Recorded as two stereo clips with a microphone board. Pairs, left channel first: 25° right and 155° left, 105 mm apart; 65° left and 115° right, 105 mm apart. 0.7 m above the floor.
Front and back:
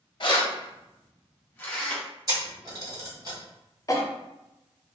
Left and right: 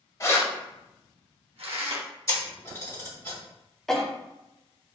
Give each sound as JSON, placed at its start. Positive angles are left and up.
{"t": 0.2, "sound": "keys jangling", "azimuth_deg": 10, "distance_m": 0.6}
{"t": 2.3, "sound": "a camera shutter", "azimuth_deg": 120, "distance_m": 1.5}
{"t": 3.9, "sound": "a cough", "azimuth_deg": -15, "distance_m": 0.6}